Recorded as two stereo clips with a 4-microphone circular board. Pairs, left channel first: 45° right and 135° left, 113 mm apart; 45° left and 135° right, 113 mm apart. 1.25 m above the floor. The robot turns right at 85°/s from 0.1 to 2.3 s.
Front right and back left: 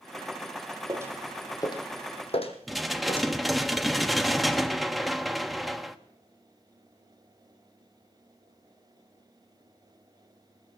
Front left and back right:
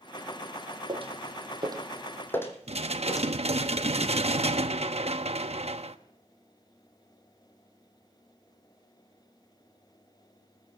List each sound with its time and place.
0.9 s footsteps: 175° right, 2.5 m; by 3.3 s 10° right, 3 m
2.7 s dishes clattering: 135° right, 1.0 m